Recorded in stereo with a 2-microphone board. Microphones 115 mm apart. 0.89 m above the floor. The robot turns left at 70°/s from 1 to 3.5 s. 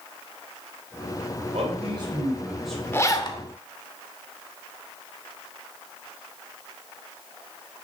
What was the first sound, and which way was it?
A man speaking, 100° right.